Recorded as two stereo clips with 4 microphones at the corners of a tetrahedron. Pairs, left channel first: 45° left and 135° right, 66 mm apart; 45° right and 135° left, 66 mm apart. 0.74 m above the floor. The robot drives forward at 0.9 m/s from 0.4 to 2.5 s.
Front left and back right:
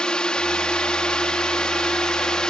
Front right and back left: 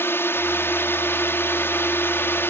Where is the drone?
25° right.